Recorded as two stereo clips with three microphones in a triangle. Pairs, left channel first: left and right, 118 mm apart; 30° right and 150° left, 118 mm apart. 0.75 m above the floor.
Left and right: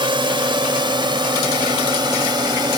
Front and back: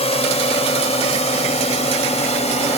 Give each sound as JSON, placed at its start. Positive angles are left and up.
{"t": 0.0, "sound": "a drone", "azimuth_deg": -50}